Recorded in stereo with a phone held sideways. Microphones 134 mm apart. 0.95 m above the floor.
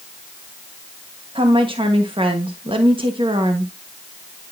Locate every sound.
1.4 s a woman speaking: 45° right (ahead or behind), 1.3 m